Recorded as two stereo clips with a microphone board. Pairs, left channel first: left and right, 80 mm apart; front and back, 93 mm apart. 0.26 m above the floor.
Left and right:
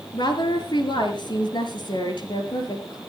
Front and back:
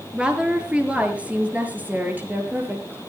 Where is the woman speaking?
100° left, 4 m; by 3.0 s 110° left, 5.5 m.